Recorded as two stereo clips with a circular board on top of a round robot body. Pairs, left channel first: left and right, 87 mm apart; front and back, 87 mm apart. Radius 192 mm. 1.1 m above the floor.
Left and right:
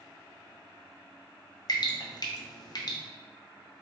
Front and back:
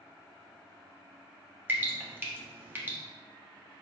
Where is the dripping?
115° left, 1.0 m.